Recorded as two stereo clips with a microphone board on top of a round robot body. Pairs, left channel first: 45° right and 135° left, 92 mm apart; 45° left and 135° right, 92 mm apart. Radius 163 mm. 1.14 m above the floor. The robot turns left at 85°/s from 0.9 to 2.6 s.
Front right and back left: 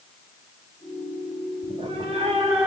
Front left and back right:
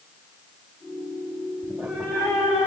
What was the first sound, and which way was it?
A cat meowing, 160° left.